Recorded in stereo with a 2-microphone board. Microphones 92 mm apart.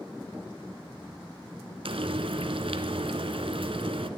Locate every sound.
1.9 s frying: 70° right (ahead or behind), 1.2 m